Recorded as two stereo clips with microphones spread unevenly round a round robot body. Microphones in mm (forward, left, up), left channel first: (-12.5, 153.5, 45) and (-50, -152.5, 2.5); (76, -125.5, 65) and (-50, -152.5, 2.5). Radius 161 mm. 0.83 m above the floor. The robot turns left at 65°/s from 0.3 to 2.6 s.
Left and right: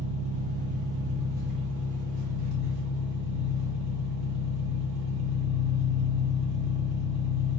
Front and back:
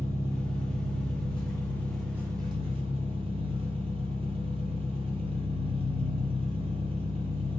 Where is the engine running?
40° left, 1.3 m; by 7.6 s 110° right, 1.3 m.